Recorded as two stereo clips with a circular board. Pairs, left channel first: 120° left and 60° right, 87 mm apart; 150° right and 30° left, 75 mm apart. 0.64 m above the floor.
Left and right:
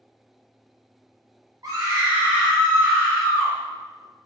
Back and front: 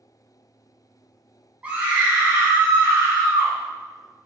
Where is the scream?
35° right, 0.9 m; by 3.5 s 80° left, 1.0 m.